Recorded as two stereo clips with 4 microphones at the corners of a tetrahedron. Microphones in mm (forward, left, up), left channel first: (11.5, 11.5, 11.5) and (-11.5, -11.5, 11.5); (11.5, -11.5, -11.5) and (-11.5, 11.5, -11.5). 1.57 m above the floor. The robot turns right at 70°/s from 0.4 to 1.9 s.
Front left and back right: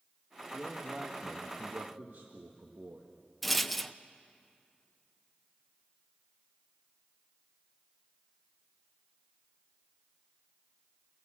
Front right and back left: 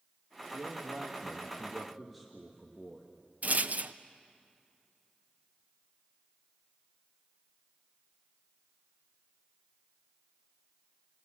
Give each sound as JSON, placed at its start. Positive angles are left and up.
{"t": 0.5, "sound": "a man speaking", "azimuth_deg": 130, "distance_m": 1.8}
{"t": 3.4, "sound": "a rattle", "azimuth_deg": 135, "distance_m": 0.6}